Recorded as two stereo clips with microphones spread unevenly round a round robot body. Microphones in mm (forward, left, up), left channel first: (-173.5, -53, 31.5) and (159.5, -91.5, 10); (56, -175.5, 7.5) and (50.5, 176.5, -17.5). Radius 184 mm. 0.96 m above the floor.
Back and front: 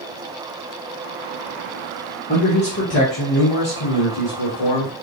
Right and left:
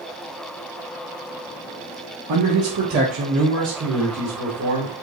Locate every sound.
2.3 s a man speaking: 110° left, 1.2 m; by 4.9 s 160° left, 2 m